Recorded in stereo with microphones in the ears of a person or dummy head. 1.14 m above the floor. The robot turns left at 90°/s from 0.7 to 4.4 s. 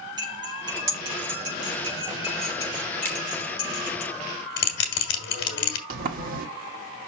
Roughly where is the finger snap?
Centre.